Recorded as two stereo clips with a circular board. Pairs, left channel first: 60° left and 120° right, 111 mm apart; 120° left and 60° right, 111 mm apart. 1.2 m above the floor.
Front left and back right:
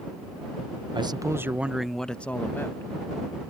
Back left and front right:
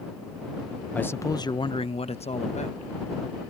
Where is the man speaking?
165° right; by 2.9 s 125° left.